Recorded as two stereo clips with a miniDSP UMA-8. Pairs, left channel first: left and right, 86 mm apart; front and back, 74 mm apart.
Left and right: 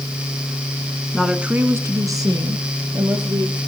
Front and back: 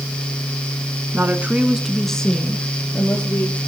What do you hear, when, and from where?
1.1 s a woman speaking: 175° left, 1.2 m; by 3.6 s 65° right, 3 m